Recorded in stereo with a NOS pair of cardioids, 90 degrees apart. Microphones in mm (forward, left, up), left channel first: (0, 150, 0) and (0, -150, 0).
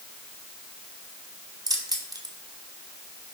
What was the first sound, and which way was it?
Keys jangling, 15° right.